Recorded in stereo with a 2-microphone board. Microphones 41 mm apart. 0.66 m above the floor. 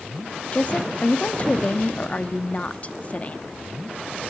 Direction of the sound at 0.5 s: 35° left (ahead or behind).